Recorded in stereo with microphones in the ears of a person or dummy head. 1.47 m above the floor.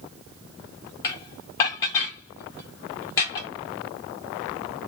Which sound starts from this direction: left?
Dishes clattering, at 1.0 s.